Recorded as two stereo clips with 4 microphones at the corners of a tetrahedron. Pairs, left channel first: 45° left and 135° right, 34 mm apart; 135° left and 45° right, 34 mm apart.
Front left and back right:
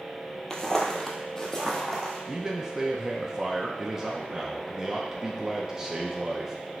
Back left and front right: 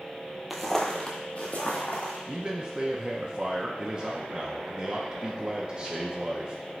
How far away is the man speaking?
About 0.6 m.